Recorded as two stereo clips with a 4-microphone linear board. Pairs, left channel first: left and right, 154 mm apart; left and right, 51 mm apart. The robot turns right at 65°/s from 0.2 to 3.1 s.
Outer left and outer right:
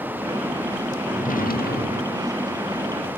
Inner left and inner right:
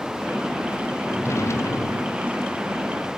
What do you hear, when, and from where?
1.1 s a drawer: 50° left; by 2.3 s 125° left